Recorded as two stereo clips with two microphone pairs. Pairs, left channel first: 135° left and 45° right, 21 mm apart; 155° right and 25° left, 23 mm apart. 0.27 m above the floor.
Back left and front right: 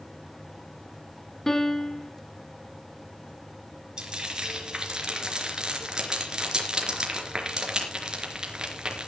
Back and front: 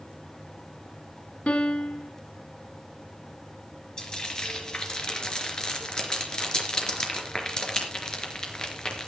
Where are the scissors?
No scissors in this recording.